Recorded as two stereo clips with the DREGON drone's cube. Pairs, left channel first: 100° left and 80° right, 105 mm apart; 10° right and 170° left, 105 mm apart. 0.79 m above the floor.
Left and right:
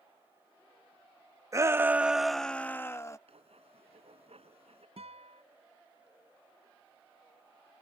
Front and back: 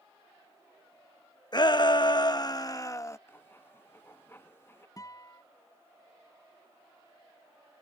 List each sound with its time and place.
1.5 s a shout: 35° right; by 3.2 s 45° left
3.3 s writing: 80° right
5.0 s a guitar: 65° right